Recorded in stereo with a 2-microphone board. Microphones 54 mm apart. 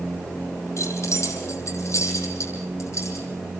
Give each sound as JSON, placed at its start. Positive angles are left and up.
{"t": 0.8, "sound": "keys jangling", "side_deg": 60, "distance_m": 6.5}